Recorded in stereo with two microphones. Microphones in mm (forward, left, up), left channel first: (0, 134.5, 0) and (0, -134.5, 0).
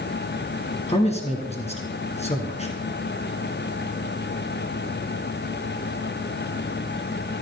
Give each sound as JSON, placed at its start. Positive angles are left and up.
{"t": 0.9, "sound": "a man speaking", "side_deg": 25, "distance_m": 1.8}